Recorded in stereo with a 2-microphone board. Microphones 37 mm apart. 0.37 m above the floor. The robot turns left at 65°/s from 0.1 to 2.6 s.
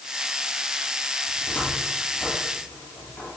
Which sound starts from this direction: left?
A cupboard door, at 1.3 s.